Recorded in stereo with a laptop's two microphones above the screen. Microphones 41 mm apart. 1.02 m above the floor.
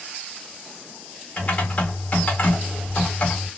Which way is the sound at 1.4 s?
35° left (ahead or behind).